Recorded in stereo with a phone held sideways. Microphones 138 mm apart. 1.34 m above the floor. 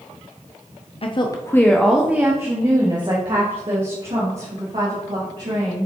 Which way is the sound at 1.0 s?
45° left (ahead or behind).